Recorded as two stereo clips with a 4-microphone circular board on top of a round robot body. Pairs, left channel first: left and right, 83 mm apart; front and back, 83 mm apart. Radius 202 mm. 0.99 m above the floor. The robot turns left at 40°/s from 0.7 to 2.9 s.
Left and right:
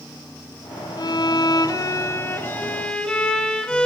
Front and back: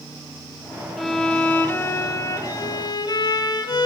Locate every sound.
1.0 s a violin: 90° left, 1.1 m; by 3.9 s 10° left, 1.1 m